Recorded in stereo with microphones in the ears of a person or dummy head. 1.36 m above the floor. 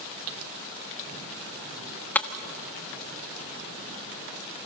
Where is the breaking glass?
15° left (ahead or behind), 1.1 m.